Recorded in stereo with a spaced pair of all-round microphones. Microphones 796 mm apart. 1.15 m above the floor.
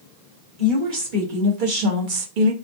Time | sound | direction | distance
0.6 | a woman speaking | 75° right (ahead or behind) | 1.9 m